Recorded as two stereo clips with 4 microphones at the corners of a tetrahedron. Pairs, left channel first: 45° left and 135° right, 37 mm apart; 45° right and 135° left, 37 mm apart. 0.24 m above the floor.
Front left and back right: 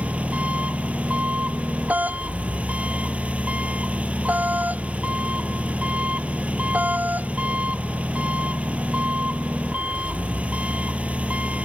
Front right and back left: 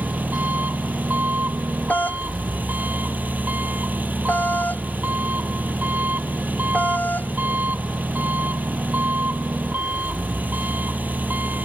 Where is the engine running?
175° left.